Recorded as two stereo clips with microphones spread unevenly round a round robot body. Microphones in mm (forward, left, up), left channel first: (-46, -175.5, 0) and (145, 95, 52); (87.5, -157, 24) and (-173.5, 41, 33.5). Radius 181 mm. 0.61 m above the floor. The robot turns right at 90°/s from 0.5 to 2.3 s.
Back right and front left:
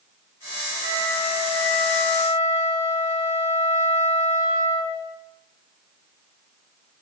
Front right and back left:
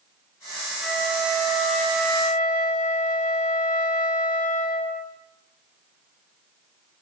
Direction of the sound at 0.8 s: 125° left.